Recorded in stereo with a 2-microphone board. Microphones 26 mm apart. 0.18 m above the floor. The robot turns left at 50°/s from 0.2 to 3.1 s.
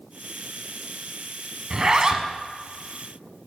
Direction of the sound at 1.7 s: 90° right.